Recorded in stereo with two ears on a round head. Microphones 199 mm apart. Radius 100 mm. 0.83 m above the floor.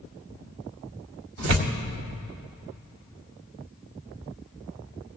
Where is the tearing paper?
60° right (ahead or behind), 1.1 m.